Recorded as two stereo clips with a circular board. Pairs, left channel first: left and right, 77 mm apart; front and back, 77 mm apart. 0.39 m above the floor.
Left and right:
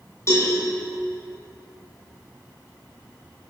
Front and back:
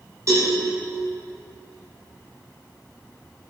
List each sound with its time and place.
0.3 s a cowbell: 140° left, 2.5 m